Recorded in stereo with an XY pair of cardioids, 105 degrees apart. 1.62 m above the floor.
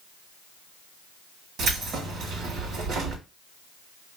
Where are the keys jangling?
70° right, 2.5 m.